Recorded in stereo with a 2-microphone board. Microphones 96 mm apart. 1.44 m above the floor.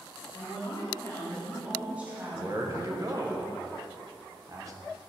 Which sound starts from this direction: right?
A man speaking, at 2.3 s.